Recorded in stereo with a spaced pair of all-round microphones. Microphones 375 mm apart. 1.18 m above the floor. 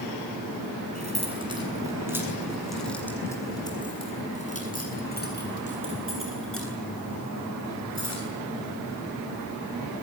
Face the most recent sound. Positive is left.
turn(degrees=50)  # may be behind; listen again after turning